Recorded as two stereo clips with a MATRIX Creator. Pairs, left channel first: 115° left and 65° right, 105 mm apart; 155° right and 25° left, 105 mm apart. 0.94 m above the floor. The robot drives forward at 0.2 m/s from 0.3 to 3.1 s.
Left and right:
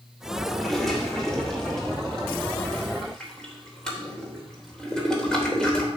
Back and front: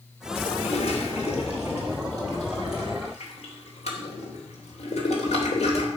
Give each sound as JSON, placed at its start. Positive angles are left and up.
{"t": 0.5, "sound": "a toilet flushing", "azimuth_deg": -160, "distance_m": 2.5}